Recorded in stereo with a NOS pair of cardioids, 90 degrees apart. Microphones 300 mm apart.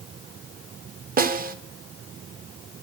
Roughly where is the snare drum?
Ahead right.